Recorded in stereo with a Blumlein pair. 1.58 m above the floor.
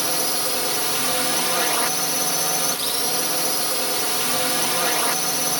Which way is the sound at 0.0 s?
5° right.